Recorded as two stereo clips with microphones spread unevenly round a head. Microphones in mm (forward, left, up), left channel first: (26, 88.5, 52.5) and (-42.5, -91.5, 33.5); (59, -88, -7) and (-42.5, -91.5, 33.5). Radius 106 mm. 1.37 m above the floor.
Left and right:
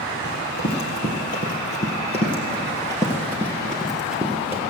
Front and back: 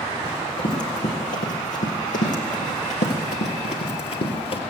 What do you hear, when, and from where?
0.2 s running footsteps: 35° left, 3 m; by 4.6 s 30° right, 2 m